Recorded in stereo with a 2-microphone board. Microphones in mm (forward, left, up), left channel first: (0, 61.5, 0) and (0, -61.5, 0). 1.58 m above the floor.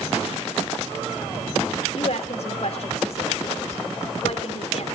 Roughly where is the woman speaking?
Left.